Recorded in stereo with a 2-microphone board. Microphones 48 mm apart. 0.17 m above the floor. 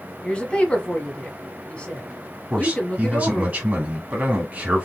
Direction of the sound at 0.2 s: 20° left (ahead or behind).